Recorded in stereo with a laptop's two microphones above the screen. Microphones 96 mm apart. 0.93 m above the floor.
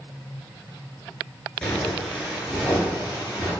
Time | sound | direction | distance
1.6 | footsteps | 10° left (ahead or behind) | 0.9 m